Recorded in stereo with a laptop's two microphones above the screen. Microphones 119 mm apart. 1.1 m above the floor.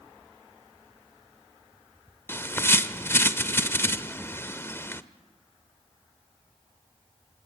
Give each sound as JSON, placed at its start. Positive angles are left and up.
{"t": 2.3, "sound": "a bird", "side_deg": 20, "distance_m": 0.8}